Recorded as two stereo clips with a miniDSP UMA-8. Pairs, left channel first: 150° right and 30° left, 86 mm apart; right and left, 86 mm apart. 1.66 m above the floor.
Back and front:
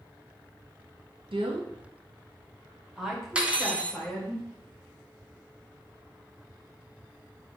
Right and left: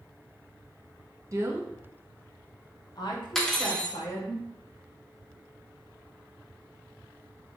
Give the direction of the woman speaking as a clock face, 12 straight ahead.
11 o'clock.